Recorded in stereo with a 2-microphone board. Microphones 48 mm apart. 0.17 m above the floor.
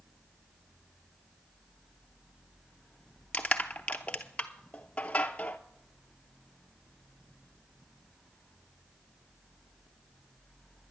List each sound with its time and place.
3.3 s crushing: 30° left (ahead or behind), 0.7 m